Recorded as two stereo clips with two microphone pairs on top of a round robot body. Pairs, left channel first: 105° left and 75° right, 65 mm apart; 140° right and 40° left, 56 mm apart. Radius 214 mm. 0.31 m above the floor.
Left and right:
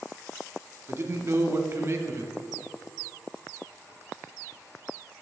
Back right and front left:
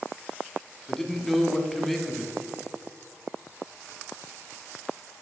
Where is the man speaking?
60° right, 1.7 m.